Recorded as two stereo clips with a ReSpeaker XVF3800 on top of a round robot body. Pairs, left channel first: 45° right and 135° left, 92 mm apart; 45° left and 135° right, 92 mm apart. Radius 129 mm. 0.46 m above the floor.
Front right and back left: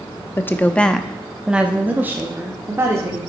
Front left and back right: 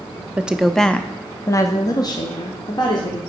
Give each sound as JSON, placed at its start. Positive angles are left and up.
{"t": 0.4, "sound": "a woman speaking", "azimuth_deg": -75, "distance_m": 0.7}